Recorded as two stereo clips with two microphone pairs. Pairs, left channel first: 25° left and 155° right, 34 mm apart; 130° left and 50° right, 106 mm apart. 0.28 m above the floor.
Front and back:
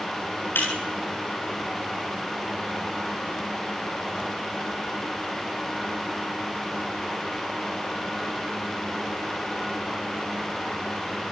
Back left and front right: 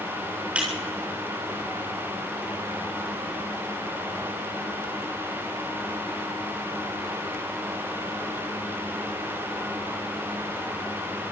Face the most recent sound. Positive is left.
turn(degrees=30)